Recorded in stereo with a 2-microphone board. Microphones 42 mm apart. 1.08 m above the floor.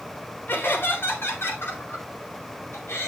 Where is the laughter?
55° left (ahead or behind), 3.5 m; by 3.1 s 80° left, 5 m.